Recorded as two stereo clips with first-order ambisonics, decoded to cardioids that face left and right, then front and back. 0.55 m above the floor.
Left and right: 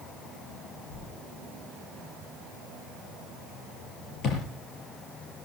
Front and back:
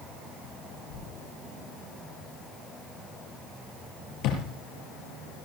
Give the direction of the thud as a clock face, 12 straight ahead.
11 o'clock.